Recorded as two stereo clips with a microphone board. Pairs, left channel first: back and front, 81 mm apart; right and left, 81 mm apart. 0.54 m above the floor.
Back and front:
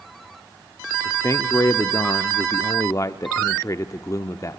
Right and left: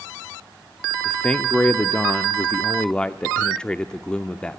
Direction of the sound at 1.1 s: 160° right.